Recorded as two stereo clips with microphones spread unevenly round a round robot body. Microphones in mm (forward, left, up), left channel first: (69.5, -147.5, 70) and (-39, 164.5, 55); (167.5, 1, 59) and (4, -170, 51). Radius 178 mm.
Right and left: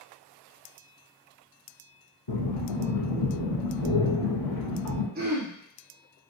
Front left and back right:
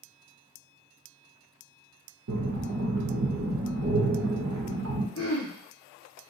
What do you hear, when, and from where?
2.3 s breathing: 105° right, 1.6 m
5.2 s throat clearing: 50° left, 1.7 m